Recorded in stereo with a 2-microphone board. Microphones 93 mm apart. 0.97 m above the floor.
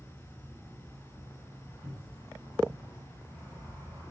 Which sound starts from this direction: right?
A cupboard door, at 1.8 s.